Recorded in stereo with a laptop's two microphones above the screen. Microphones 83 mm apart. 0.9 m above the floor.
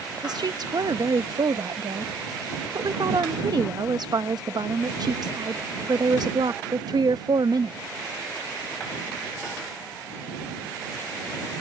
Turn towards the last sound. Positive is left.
turn(degrees=-60)  # may be behind; listen again after turning